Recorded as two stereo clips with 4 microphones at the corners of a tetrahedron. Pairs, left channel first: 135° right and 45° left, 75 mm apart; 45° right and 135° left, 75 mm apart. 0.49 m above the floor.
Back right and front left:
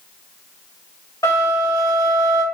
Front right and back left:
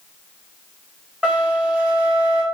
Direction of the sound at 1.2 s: 160° right.